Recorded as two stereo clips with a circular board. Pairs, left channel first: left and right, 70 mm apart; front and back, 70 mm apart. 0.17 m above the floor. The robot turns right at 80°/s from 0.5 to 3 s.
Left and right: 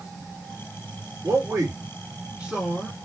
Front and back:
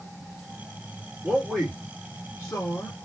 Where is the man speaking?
115° right, 2 m; by 2.9 s 20° left, 2 m.